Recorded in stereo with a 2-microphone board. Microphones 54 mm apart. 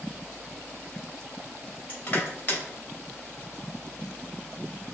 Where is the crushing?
40° left (ahead or behind), 2.5 m.